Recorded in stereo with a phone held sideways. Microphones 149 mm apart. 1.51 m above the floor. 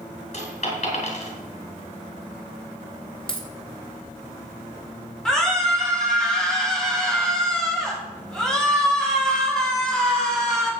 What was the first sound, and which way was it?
A dropped coin, 55° left (ahead or behind).